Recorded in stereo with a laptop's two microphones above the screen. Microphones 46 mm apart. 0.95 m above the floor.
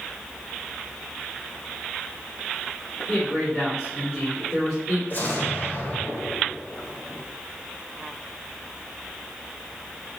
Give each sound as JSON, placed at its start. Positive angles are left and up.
{"t": 3.1, "sound": "a man speaking", "side_deg": 15, "distance_m": 3.0}
{"t": 5.1, "sound": "an explosion", "side_deg": 40, "distance_m": 1.6}